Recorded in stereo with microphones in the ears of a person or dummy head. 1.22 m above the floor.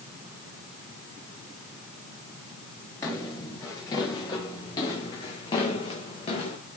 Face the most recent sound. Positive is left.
turn(degrees=35)  # may be behind; listen again after turning